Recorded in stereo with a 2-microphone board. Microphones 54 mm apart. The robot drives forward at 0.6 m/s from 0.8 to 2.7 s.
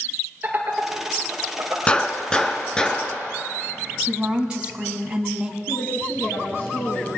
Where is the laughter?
35° right (ahead or behind), 3.5 m; by 1.8 s 30° right (ahead or behind), 4 m.